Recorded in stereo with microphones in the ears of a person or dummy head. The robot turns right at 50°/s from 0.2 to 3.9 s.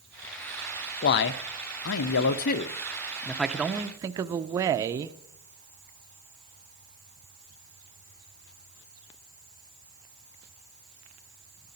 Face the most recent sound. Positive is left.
turn(degrees=-160)